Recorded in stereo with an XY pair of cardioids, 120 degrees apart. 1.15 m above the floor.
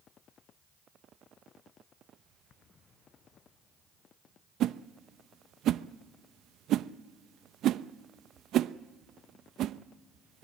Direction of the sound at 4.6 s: 65° right.